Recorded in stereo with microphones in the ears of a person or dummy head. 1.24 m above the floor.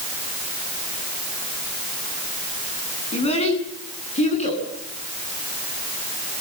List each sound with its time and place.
3.1 s a child speaking: 30° left (ahead or behind), 9.5 m; by 4.6 s 35° left (ahead or behind), 11.5 m